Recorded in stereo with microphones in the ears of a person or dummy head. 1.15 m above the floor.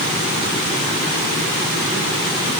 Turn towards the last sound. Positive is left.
No sound to turn to.